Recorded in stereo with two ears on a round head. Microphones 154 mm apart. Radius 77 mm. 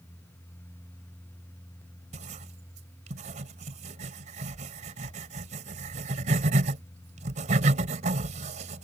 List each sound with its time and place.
2.1 s writing: 45° right (ahead or behind)